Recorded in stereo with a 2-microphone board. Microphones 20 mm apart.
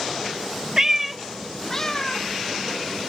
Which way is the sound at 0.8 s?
30° right (ahead or behind).